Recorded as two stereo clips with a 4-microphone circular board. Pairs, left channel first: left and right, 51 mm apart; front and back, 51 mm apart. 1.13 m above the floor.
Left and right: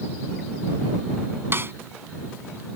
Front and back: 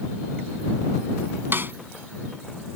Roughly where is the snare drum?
Behind right.